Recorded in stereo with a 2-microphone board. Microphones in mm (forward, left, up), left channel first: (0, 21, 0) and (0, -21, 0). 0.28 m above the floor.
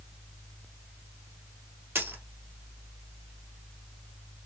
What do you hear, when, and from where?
1.9 s a dropped coin: 65° right (ahead or behind), 1.4 m